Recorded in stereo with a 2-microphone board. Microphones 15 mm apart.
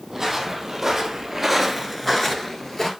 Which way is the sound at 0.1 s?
15° right (ahead or behind).